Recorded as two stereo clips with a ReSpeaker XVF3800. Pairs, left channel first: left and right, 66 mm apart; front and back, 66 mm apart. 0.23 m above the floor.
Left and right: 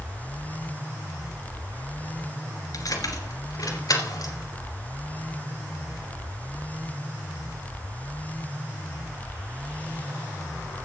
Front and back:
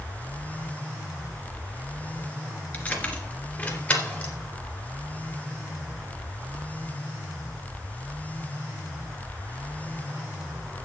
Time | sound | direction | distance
2.7 | keys jangling | 65° left | 2 m